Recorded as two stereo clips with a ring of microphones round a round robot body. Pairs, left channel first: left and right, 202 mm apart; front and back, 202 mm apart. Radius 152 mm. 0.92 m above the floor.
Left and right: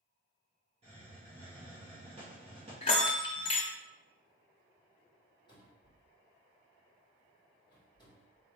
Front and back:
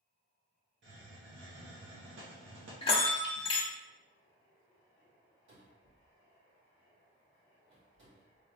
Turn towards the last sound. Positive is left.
turn(degrees=160)